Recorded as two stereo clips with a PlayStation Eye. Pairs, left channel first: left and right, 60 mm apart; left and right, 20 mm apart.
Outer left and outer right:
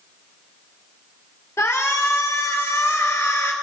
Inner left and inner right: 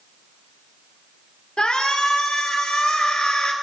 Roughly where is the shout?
Left.